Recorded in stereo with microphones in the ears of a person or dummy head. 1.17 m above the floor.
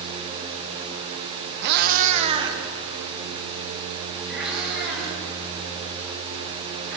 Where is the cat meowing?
60° right (ahead or behind), 0.8 m; by 7.0 s centre (ahead or behind), 6.5 m.